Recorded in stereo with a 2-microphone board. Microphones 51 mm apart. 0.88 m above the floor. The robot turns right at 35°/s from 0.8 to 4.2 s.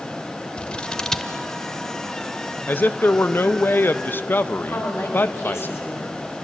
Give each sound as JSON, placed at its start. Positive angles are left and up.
{"t": 0.6, "sound": "scissors", "side_deg": 20, "distance_m": 0.9}
{"t": 2.7, "sound": "a man speaking", "azimuth_deg": 60, "distance_m": 0.7}
{"t": 4.7, "sound": "a woman speaking", "side_deg": 60, "distance_m": 5.0}